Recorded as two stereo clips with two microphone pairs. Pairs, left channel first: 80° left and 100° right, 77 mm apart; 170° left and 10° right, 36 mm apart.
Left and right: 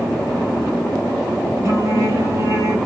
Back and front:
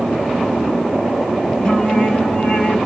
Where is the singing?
130° right, 4 m.